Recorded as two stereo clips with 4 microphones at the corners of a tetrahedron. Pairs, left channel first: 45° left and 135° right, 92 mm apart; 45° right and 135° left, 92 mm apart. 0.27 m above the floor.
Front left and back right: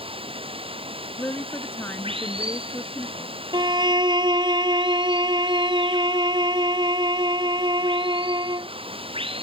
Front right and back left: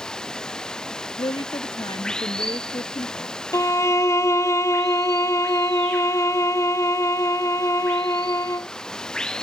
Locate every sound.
0.0 s running water: 130° right
1.2 s a woman speaking: 20° right
3.5 s a violin: 100° right